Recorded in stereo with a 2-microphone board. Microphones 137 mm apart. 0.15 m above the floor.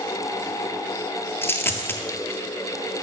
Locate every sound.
1.4 s a dropped coin: 15° left (ahead or behind), 0.5 m